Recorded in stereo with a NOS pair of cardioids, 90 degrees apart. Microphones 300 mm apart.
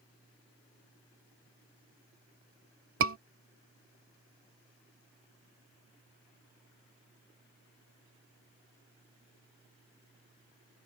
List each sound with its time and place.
3.0 s a scream: 45° right